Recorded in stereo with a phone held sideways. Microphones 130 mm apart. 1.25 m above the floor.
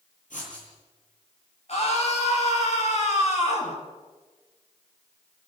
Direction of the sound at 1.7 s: 55° left (ahead or behind).